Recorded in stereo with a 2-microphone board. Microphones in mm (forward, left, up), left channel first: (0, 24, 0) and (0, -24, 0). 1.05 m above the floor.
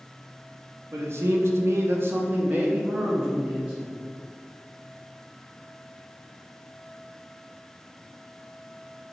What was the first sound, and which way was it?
A man speaking, 55° right (ahead or behind).